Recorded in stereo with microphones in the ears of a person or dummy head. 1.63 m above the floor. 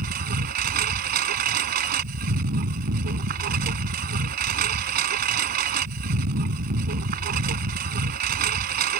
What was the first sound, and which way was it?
A lawn mower, 45° right (ahead or behind).